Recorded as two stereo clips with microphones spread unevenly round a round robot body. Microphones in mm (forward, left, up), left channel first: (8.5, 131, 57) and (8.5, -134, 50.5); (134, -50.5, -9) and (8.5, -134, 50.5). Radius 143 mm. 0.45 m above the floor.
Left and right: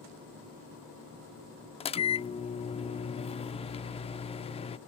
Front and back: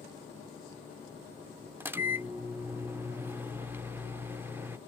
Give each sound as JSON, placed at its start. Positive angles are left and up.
{"t": 1.8, "sound": "a microwave", "azimuth_deg": 95}